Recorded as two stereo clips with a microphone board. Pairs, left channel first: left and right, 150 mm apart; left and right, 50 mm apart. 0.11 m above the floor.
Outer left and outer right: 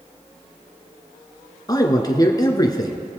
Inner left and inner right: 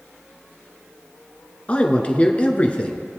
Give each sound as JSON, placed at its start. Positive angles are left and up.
{"t": 1.7, "sound": "a man speaking", "side_deg": 25, "distance_m": 1.2}